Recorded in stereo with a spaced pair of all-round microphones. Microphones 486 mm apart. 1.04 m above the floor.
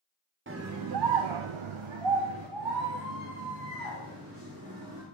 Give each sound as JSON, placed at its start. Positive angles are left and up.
{"t": 0.5, "sound": "a scream", "side_deg": -25, "distance_m": 0.5}